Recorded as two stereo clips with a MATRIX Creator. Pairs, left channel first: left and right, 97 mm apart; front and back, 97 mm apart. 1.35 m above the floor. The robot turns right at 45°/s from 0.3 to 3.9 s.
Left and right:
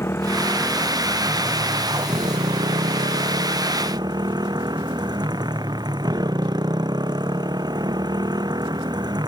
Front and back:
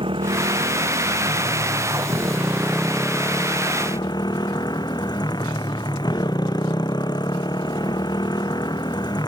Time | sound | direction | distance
0.0 | a motorcycle | 155° left | ?